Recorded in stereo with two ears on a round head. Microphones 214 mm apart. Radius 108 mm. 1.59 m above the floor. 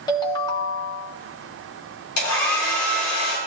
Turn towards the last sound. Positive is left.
turn(degrees=70)  # may be behind; listen again after turning